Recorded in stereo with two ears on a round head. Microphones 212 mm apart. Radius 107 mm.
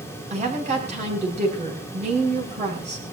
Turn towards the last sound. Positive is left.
turn(degrees=-30)  # may be behind; listen again after turning